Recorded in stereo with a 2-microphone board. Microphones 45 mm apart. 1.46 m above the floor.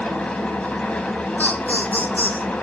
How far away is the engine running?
About 2.5 m.